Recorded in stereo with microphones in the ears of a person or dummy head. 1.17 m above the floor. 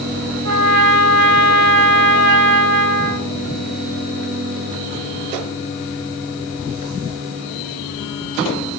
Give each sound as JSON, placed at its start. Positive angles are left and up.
{"t": 0.5, "sound": "a trumpet", "side_deg": -75, "distance_m": 1.5}